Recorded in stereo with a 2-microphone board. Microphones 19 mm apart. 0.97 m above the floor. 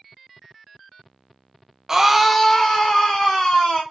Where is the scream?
25° right (ahead or behind), 0.6 m; by 3.8 s 50° left (ahead or behind), 1.5 m.